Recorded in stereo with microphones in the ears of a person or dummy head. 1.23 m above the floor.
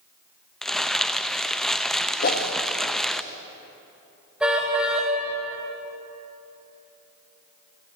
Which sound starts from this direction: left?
A whoosh, at 2.2 s.